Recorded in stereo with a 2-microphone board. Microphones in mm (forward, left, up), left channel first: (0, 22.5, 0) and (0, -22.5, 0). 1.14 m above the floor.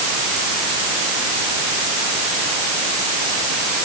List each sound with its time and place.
Only background noise.